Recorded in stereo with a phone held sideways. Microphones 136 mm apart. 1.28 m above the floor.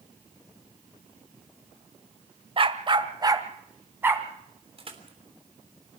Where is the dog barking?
40° right (ahead or behind), 1.3 m; by 4.3 s 15° right (ahead or behind), 2.5 m.